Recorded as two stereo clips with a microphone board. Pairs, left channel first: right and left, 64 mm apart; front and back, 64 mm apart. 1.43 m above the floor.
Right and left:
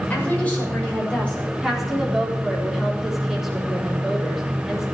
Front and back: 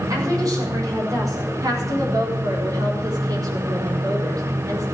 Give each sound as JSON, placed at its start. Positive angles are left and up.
{"t": 0.1, "sound": "a woman speaking", "azimuth_deg": -155, "distance_m": 6.5}
{"t": 1.6, "sound": "a woman speaking", "azimuth_deg": 175, "distance_m": 4.5}